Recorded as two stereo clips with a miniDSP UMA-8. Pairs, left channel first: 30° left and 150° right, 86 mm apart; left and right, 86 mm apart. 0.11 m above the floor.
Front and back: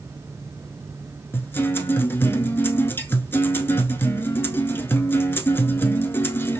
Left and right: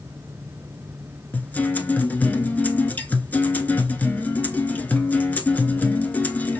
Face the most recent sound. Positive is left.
turn(degrees=50)